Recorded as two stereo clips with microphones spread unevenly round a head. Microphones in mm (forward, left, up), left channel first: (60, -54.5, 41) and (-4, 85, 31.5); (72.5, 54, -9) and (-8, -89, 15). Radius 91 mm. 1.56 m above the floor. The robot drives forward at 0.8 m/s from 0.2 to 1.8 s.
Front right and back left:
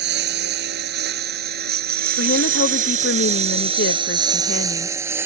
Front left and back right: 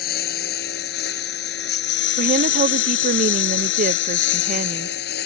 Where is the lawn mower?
105° left; by 5.3 s 35° left.